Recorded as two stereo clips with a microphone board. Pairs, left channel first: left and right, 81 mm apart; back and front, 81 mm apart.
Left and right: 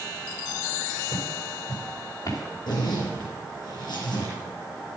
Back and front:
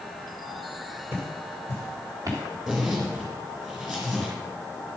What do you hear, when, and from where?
1.1 s footsteps: 50° left, 3.5 m; by 2.4 s 40° left, 4 m
2.7 s a zipper: 75° left, 4.5 m